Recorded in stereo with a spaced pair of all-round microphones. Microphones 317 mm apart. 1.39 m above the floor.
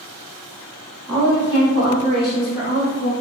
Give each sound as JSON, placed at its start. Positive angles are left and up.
{"t": 1.1, "sound": "a woman speaking", "side_deg": -5, "distance_m": 1.5}